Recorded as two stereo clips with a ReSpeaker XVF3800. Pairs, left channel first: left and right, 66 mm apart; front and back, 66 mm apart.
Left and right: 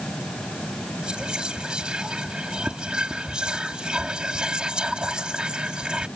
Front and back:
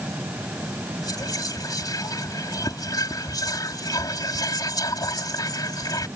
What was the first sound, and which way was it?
Whispering, 15° right.